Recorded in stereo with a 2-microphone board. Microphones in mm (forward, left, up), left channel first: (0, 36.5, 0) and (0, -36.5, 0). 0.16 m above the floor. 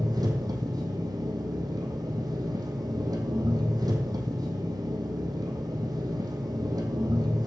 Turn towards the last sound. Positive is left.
turn(degrees=-80)